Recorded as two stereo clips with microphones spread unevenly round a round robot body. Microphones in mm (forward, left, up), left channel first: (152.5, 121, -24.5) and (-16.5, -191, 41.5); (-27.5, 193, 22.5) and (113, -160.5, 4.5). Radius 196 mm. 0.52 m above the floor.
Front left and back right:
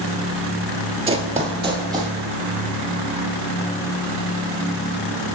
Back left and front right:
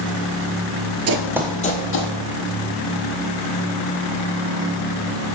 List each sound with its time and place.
1.1 s running footsteps: 75° right, 0.5 m; by 2.1 s 165° left, 1.2 m